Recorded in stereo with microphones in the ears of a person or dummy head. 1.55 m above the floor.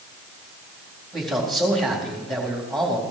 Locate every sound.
1.1 s a man speaking: centre (ahead or behind), 4 m